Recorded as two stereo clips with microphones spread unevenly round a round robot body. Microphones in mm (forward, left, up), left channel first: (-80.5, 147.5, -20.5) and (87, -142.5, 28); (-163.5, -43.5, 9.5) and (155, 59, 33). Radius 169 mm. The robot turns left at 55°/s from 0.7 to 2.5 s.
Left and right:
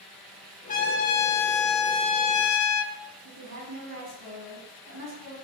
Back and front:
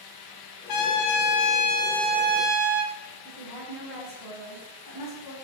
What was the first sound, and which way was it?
A trumpet, 175° right.